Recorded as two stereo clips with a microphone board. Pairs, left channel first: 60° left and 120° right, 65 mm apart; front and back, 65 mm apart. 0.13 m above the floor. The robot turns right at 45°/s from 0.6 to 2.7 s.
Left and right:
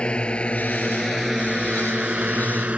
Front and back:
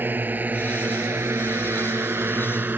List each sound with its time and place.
0.0 s a drone: 130° left; by 2.8 s 170° right